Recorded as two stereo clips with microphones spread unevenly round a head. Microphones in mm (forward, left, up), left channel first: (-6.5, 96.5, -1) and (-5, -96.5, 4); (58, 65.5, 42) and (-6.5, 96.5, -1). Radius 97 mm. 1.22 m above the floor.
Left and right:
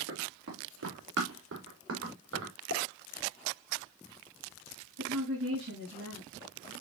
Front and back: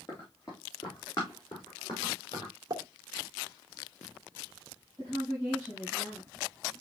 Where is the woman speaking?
100° right, 6 m.